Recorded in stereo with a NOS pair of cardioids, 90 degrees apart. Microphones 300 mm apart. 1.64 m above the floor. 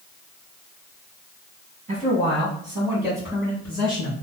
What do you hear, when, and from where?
1.9 s a man speaking: 30° right, 1.5 m; by 4.1 s 15° left, 1.8 m